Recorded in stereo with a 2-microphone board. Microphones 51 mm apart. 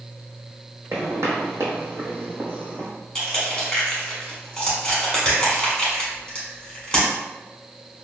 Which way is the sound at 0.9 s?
60° right (ahead or behind).